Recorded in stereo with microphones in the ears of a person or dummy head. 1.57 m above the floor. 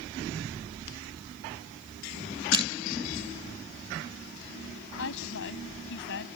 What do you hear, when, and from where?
2.5 s crushing: 25° right (ahead or behind)
5.0 s a woman speaking: 70° left (ahead or behind)